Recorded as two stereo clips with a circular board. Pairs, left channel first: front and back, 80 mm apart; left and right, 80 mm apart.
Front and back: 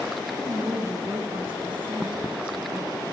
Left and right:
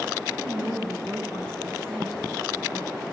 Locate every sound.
0.3 s a woman speaking: 170° left, 7 m